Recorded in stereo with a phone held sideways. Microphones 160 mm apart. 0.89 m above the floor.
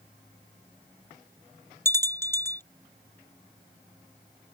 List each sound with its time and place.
1.9 s a bell: 15° left (ahead or behind)